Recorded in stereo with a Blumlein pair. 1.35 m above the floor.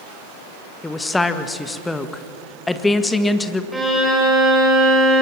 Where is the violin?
5° right, 5.5 m.